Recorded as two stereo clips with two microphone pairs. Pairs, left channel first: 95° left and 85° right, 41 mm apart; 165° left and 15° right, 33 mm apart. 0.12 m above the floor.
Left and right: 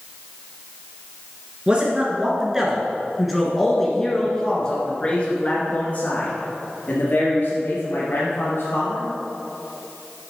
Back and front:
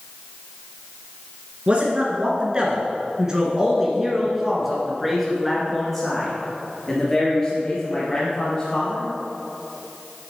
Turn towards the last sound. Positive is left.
turn(degrees=100)